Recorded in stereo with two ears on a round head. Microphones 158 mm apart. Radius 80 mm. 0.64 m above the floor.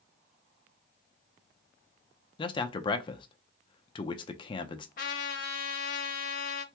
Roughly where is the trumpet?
Left.